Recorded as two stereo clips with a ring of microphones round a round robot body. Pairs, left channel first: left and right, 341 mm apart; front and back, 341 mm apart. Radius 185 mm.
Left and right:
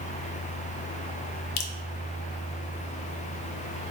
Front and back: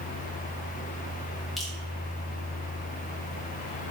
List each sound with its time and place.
1.6 s dripping: 90° left, 0.6 m